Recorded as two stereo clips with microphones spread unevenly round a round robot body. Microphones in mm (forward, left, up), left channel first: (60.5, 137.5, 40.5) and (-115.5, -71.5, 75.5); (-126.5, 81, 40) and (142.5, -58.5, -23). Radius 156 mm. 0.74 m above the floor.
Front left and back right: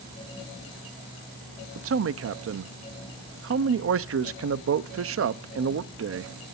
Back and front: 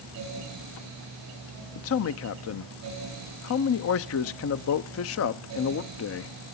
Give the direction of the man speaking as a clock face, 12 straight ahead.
5 o'clock.